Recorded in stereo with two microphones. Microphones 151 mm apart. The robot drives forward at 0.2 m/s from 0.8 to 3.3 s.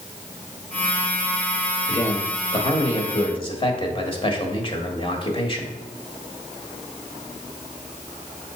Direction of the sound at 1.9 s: 40° left (ahead or behind).